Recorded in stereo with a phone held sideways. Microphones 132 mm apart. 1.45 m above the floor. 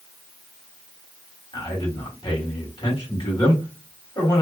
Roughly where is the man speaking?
Left.